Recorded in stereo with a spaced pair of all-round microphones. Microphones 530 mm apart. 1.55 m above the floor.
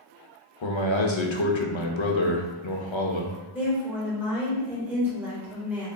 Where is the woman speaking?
5° right (ahead or behind), 1.7 m.